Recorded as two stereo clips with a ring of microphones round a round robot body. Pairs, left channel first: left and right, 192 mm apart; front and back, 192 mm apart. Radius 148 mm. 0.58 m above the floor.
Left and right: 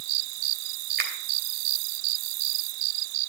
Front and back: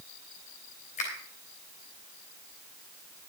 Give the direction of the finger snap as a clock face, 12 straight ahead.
2 o'clock.